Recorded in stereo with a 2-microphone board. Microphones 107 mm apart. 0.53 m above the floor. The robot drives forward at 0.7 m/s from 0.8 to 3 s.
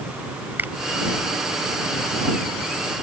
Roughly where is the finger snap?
Centre.